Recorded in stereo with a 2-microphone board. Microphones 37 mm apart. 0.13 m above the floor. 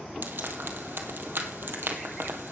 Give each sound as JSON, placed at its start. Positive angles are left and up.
{"t": 0.2, "sound": "frying", "side_deg": -70, "distance_m": 2.0}